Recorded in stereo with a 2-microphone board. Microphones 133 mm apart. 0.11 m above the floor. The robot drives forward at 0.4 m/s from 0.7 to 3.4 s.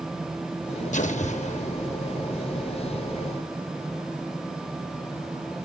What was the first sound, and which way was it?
An explosion, 70° left (ahead or behind).